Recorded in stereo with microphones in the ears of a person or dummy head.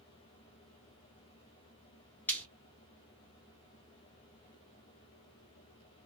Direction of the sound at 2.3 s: 5° left (ahead or behind).